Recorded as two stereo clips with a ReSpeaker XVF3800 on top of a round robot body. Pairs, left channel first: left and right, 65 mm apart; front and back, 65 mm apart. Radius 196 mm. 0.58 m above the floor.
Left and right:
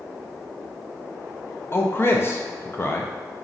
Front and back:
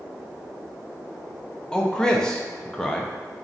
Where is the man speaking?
70° left, 0.6 m.